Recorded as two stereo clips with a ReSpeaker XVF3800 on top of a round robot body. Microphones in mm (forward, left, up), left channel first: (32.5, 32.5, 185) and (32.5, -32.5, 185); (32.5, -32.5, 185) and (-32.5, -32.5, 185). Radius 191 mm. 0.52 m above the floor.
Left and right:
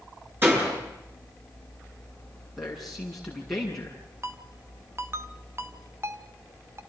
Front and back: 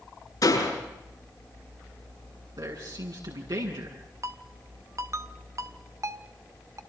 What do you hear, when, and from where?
0.4 s a door slam: 30° right, 9 m
2.6 s a man speaking: 175° left, 8 m
4.2 s a ringtone: 140° right, 1.2 m